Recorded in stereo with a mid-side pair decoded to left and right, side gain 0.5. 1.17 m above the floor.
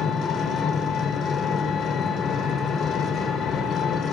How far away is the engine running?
About 4 m.